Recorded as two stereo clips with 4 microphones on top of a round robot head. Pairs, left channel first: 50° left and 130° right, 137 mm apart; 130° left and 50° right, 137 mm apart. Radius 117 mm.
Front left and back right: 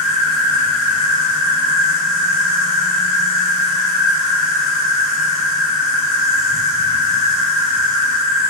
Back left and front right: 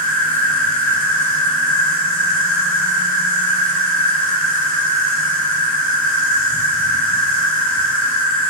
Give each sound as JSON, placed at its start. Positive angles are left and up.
{"t": 0.0, "sound": "an insect", "azimuth_deg": -45, "distance_m": 1.6}